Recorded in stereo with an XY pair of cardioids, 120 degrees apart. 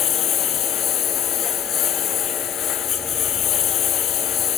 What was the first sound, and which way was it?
A lawn mower, 55° left.